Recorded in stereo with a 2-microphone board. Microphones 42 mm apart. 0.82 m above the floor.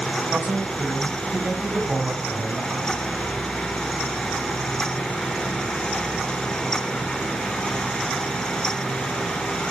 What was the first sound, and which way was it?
A man speaking, 55° right (ahead or behind).